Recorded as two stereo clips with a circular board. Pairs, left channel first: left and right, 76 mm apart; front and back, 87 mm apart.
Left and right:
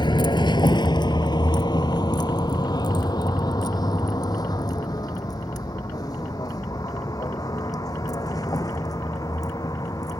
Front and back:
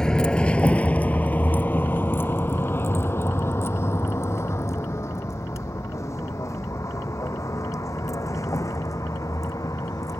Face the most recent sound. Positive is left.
turn(degrees=50)